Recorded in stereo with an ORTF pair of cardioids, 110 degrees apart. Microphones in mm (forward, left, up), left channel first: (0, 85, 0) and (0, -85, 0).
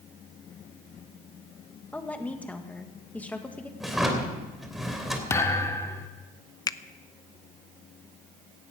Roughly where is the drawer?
Ahead.